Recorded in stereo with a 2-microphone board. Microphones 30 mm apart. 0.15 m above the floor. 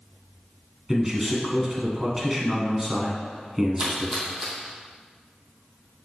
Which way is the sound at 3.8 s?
15° right (ahead or behind).